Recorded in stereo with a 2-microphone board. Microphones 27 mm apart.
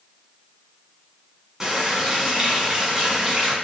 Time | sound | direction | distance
1.6 | a running tap | 20° right (ahead or behind) | 1.4 m